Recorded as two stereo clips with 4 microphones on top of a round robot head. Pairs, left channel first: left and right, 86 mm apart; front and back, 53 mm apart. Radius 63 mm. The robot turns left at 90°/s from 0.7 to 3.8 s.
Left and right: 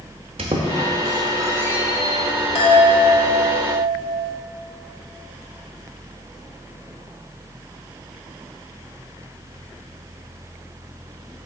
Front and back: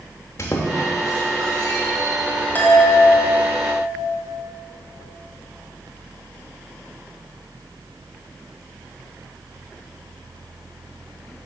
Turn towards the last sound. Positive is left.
turn(degrees=-55)